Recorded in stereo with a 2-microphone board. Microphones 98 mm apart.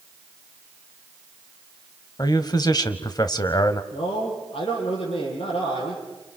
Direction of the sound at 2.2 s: 45° left (ahead or behind).